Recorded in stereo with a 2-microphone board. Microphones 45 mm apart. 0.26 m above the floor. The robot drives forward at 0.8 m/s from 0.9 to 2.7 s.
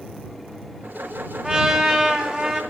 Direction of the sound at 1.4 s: 15° right (ahead or behind).